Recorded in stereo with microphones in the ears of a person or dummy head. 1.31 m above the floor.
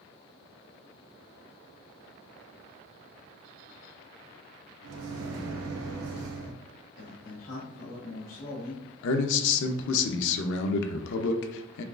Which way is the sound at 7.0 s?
45° left (ahead or behind).